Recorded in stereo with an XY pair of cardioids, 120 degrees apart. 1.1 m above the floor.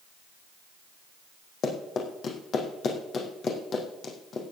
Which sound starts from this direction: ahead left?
Running footsteps, at 1.6 s.